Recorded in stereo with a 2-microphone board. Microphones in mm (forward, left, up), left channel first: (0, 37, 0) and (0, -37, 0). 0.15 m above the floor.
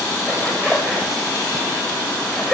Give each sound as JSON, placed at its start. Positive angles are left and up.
{"t": 0.3, "sound": "a zipper", "side_deg": 0, "distance_m": 8.5}